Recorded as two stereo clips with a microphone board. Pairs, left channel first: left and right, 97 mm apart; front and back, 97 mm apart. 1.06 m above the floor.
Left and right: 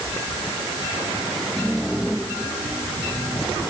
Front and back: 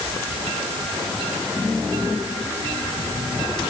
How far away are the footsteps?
No footsteps in this recording.